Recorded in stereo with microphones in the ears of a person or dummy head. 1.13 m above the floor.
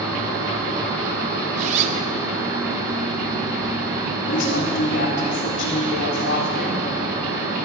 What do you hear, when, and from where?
1.6 s a zipper: 35° right (ahead or behind), 1.0 m
4.3 s a woman speaking: 65° left (ahead or behind), 3.5 m